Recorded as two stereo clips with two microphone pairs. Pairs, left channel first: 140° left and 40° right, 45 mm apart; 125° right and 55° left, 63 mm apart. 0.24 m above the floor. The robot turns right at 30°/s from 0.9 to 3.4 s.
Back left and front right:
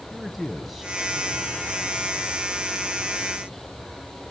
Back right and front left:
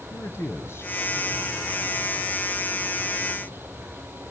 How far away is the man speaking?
About 1.8 m.